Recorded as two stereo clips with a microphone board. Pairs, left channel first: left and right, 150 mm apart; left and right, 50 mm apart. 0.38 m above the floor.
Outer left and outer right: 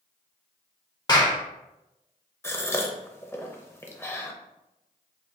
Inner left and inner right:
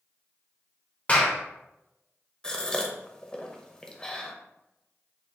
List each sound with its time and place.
1.1 s a clap: 25° left (ahead or behind), 0.7 m
2.4 s a gasp: 15° left (ahead or behind), 0.6 m